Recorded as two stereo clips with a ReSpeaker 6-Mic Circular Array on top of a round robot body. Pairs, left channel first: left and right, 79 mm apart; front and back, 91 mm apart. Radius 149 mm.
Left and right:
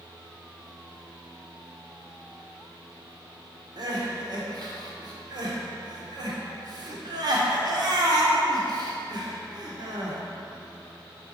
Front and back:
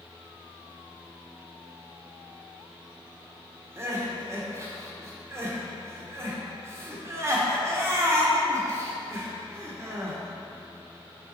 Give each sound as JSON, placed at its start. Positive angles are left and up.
{"t": 3.8, "sound": "crying", "azimuth_deg": -120, "distance_m": 1.2}